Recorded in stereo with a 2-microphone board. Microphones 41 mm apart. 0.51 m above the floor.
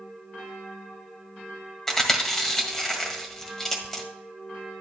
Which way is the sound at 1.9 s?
10° left (ahead or behind).